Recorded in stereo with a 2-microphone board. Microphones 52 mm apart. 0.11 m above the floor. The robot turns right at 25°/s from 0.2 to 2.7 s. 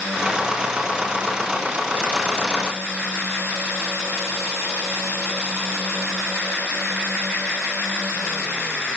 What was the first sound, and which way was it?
Only background noise.